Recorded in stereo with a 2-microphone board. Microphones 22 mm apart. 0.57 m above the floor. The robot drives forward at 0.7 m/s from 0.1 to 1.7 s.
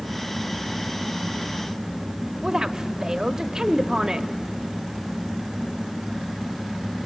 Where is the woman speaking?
25° right (ahead or behind), 0.7 m.